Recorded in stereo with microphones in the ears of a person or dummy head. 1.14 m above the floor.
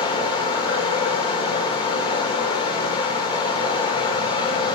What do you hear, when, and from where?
0.0 s running water: 30° left (ahead or behind), 1.5 m